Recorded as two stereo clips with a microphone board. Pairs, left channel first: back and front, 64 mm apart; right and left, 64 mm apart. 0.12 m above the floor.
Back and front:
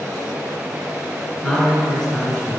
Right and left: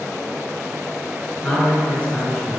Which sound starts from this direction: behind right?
A man speaking, at 1.4 s.